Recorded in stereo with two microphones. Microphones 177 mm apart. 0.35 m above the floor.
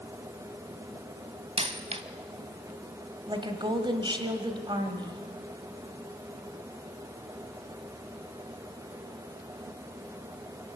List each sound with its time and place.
1.6 s a dropped coin: 35° right (ahead or behind), 1.1 m
3.3 s a woman speaking: 25° right (ahead or behind), 2.0 m